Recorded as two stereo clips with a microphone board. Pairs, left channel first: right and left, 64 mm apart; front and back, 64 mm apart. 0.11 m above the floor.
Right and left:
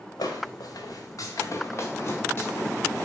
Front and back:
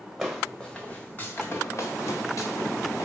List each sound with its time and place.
0.2 s footsteps: 95° right, 0.9 m; by 3.0 s 25° right, 1.7 m